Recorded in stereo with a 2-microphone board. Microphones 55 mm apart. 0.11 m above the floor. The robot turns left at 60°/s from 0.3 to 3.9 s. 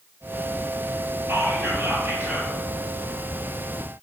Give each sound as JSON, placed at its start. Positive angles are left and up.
{"t": 1.3, "sound": "whispering", "azimuth_deg": -75, "distance_m": 2.0}